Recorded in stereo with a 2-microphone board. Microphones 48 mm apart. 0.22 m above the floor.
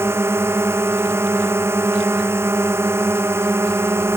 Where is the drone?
65° right (ahead or behind).